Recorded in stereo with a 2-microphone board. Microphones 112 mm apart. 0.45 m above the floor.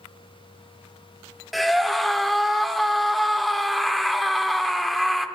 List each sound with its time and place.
1.5 s a scream: centre (ahead or behind), 0.8 m